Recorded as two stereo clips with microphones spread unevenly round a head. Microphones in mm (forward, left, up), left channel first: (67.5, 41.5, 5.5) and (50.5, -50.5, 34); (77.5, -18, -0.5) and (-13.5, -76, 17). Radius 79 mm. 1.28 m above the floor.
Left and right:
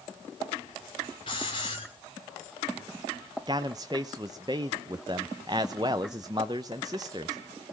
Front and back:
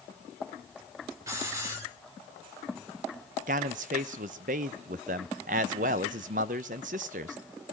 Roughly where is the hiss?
Behind left.